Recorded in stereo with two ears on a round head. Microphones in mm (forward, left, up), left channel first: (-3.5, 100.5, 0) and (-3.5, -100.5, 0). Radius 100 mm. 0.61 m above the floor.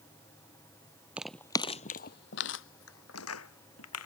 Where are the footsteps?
5° right (ahead or behind); by 4.1 s 75° left (ahead or behind).